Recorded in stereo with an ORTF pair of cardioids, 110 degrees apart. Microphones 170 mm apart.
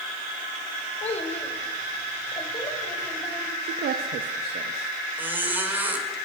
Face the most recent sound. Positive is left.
turn(degrees=-10)